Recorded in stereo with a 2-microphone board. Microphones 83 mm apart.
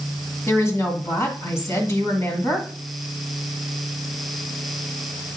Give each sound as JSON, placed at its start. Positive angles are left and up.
{"t": 0.5, "sound": "a woman speaking", "side_deg": 35, "distance_m": 1.8}